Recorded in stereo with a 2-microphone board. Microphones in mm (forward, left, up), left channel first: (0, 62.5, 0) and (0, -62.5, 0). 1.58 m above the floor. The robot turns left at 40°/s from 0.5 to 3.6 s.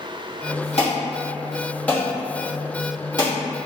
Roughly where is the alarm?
Left.